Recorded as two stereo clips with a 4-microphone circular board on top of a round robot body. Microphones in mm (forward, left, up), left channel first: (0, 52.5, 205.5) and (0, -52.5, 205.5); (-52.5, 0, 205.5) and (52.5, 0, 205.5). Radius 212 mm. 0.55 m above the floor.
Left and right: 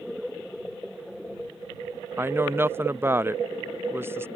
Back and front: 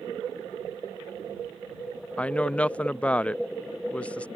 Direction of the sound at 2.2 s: 120° right.